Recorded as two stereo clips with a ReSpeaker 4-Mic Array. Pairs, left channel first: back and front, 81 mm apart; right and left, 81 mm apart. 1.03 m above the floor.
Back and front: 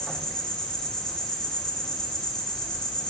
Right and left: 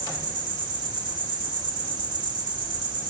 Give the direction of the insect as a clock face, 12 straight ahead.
9 o'clock.